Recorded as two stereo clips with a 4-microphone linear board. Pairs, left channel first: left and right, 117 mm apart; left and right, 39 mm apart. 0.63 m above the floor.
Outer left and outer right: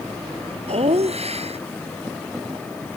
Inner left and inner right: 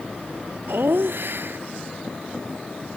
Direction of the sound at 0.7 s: 60° right (ahead or behind).